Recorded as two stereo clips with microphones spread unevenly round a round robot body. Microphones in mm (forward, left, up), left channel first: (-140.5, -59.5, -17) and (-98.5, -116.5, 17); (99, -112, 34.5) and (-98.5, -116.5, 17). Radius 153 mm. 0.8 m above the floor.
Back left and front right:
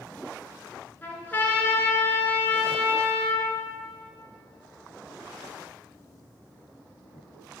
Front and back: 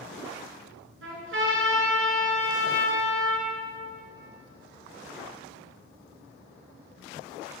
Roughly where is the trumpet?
Behind.